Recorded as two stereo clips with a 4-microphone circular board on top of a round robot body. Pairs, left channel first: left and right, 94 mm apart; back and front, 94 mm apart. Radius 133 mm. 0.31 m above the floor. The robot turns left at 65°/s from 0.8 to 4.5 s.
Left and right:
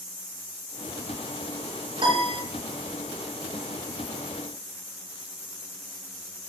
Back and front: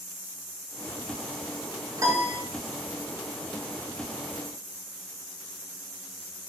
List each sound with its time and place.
2.0 s a piano: 55° right, 5.5 m; by 2.4 s 80° right, 5.5 m